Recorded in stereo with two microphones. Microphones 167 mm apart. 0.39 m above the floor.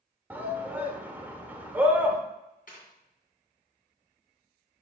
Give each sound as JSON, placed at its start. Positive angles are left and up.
{"t": 0.3, "sound": "a shout", "side_deg": -10, "distance_m": 0.9}
{"t": 2.7, "sound": "tearing paper", "side_deg": 60, "distance_m": 2.5}